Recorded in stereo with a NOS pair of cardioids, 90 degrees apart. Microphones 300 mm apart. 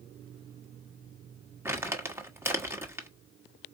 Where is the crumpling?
10° right, 1.1 m.